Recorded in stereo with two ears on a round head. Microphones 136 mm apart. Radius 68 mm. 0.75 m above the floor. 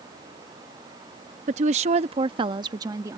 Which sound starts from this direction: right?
A woman speaking, at 1.5 s.